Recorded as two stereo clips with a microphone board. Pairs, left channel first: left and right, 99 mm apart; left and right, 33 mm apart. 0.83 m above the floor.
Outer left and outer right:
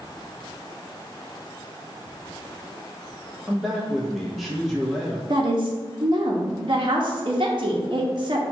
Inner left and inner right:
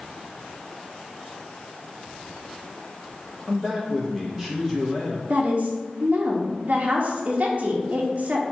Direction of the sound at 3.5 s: Centre (ahead or behind).